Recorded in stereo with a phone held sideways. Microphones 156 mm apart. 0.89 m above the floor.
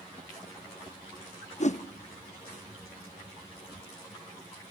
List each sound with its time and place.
1.6 s a whoosh: 50° left (ahead or behind), 0.6 m